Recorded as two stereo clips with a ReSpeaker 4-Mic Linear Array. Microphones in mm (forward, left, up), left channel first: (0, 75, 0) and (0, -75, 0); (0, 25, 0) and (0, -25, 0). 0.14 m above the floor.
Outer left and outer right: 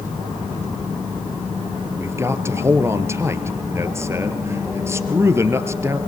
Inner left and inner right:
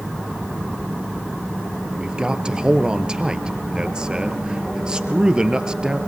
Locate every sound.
2.0 s a man speaking: 20° right (ahead or behind), 2 m